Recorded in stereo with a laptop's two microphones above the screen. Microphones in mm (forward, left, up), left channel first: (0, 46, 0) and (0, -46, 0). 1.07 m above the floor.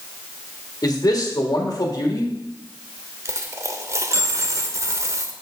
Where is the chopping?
No chopping in this recording.